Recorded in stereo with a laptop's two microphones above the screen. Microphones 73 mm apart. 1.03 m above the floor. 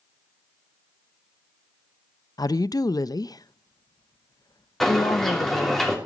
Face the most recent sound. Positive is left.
turn(degrees=5)  # may be behind; listen again after turning